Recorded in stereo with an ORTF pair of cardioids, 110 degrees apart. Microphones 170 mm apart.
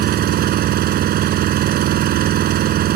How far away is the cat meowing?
I don't hear a cat meowing.